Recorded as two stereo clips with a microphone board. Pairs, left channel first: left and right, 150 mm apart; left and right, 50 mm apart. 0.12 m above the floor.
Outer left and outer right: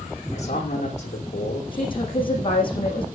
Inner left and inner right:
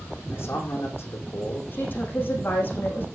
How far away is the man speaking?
About 7 m.